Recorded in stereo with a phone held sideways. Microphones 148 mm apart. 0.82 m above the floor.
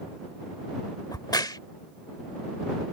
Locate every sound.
1.1 s a crack: 30° left (ahead or behind)